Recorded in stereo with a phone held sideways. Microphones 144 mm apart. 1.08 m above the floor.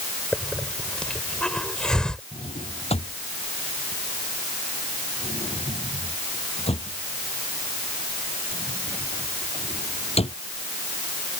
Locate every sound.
0.3 s a hiss: 5° left (ahead or behind)
2.3 s a drawer: 40° left (ahead or behind)